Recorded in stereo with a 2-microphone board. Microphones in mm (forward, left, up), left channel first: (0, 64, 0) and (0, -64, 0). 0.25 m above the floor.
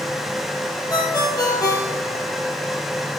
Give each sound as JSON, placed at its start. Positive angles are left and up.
{"t": 0.9, "sound": "a ringtone", "side_deg": 30, "distance_m": 3.0}